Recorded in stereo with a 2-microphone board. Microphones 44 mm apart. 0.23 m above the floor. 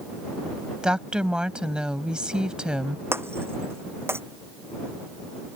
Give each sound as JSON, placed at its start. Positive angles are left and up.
{"t": 0.8, "sound": "a woman speaking", "side_deg": -20}
{"t": 3.1, "sound": "breaking glass", "side_deg": -65}